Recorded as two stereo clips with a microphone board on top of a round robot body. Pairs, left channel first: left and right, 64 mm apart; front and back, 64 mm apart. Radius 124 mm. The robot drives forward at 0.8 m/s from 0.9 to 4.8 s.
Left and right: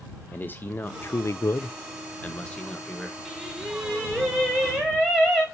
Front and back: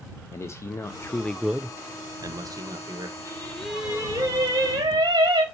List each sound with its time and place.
0.3 s a man speaking: 35° left, 0.6 m; by 3.1 s 170° left, 1.5 m
3.2 s singing: 5° right, 0.9 m; by 5.4 s straight behind, 1.2 m